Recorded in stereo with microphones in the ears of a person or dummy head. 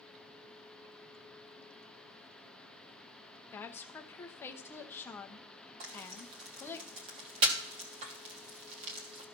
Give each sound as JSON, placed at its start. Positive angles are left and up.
{"t": 3.5, "sound": "a woman speaking", "side_deg": 15, "distance_m": 0.7}
{"t": 5.8, "sound": "frying", "side_deg": -30, "distance_m": 1.4}